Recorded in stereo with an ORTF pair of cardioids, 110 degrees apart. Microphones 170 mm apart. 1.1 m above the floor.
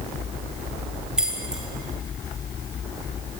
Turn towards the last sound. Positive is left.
turn(degrees=-5)